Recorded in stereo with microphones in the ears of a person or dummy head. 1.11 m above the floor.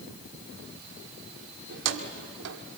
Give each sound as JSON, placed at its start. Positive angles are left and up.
{"t": 1.7, "sound": "keys jangling", "side_deg": -75, "distance_m": 1.9}